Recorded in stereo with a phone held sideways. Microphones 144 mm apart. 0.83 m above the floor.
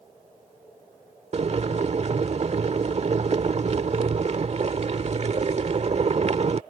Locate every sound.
1.3 s boiling: 50° right (ahead or behind)